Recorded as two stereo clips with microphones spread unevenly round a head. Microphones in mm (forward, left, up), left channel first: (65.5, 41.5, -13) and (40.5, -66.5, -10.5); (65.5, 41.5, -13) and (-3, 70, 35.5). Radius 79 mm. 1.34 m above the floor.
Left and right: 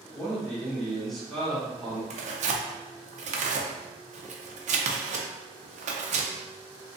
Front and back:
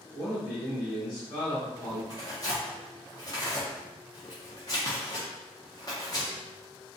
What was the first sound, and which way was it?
A man speaking, 10° right.